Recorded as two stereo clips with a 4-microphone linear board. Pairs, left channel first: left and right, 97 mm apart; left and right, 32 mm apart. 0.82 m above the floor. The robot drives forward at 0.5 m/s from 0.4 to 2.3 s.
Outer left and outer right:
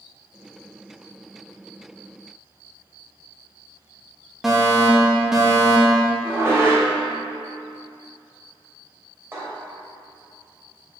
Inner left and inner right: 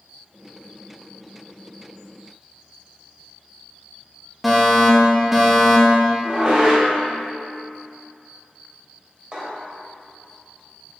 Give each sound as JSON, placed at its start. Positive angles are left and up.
{"t": 4.4, "sound": "a fire alarm", "side_deg": -5, "distance_m": 1.8}
{"t": 6.2, "sound": "dishes clattering", "side_deg": -25, "distance_m": 2.5}